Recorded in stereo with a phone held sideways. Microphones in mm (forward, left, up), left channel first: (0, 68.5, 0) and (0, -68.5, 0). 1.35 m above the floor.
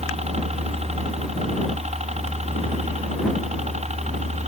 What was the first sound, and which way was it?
A helicopter, 55° right (ahead or behind).